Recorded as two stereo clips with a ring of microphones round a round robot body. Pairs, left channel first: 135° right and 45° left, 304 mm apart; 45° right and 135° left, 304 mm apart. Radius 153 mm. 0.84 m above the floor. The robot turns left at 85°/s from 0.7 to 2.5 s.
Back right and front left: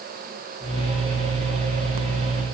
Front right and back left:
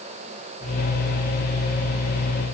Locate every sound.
Only background noise.